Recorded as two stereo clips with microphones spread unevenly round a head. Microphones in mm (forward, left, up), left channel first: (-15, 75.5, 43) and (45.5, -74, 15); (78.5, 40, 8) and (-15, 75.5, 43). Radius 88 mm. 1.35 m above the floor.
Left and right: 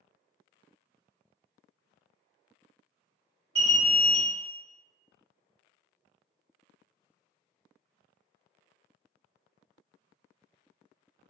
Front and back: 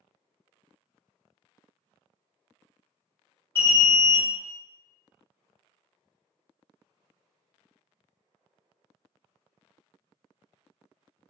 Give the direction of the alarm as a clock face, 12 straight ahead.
2 o'clock.